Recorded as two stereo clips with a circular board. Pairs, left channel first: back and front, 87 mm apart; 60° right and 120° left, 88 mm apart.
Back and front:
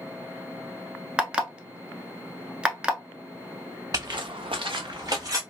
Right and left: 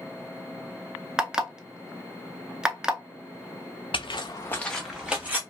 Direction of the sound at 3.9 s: 50° right.